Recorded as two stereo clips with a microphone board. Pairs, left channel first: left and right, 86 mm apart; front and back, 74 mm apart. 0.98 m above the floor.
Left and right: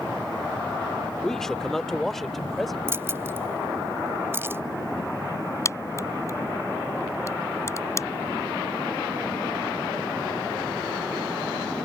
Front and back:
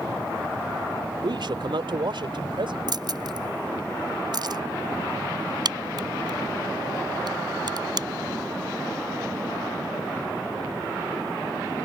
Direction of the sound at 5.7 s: 150° left.